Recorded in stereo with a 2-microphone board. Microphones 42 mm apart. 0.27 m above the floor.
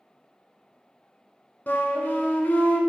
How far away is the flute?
About 0.5 m.